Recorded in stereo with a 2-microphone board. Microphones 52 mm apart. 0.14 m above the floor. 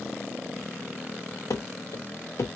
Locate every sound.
1.5 s running footsteps: 70° left (ahead or behind), 0.6 m; by 2.6 s 55° left (ahead or behind), 0.8 m